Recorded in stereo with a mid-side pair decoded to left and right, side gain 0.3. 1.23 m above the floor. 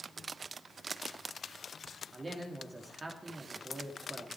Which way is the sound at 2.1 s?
40° right.